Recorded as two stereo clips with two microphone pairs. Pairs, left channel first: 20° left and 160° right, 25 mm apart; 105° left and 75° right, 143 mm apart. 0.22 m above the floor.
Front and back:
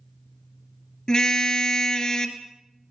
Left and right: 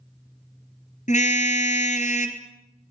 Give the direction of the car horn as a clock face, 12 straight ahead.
9 o'clock.